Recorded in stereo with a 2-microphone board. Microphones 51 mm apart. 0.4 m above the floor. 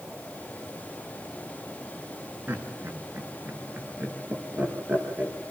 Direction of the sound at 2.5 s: 30° right (ahead or behind).